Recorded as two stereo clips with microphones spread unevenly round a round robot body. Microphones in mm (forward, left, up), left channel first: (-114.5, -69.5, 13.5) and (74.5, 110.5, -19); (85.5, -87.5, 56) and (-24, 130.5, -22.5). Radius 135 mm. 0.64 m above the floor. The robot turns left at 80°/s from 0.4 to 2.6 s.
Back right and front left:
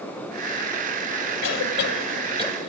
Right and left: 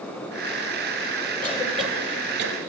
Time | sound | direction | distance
1.4 | a cough | 130° right | 3 m